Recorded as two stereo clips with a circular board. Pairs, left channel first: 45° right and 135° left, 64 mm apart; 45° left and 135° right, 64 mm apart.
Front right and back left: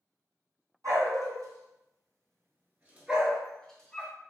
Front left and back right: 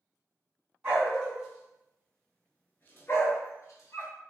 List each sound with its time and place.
0.8 s a dog barking: 150° left, 1.3 m; by 4.2 s 20° left, 0.9 m